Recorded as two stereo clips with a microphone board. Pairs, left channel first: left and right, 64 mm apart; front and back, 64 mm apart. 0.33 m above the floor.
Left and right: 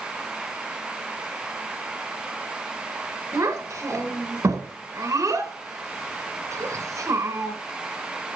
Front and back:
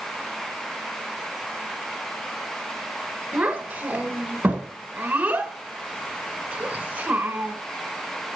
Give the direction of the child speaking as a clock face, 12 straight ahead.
4 o'clock.